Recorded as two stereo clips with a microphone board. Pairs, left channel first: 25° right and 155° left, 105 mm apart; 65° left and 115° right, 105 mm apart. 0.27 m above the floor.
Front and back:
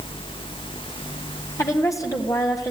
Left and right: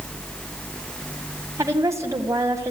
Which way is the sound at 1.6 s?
65° right.